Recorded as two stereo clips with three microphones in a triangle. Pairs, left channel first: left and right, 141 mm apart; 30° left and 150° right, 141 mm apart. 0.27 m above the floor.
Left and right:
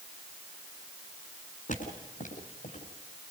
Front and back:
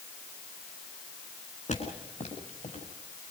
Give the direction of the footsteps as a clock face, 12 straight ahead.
10 o'clock.